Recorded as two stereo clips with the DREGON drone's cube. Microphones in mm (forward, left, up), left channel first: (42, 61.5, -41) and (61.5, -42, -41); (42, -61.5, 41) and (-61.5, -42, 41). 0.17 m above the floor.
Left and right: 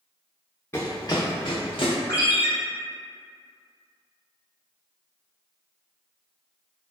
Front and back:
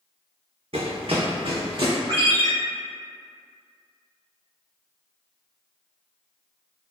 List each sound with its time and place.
0.7 s running footsteps: 165° left, 0.6 m; by 1.9 s 130° left, 1.1 m
2.1 s a ringtone: 140° left, 1.1 m